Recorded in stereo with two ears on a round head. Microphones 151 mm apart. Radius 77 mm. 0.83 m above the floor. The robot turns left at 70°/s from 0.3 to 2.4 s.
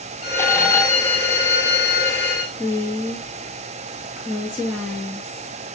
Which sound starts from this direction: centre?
A woman speaking, at 2.6 s.